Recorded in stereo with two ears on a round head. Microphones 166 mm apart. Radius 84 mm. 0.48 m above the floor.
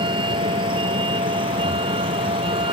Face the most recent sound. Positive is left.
turn(degrees=-30)  # may be behind; listen again after turning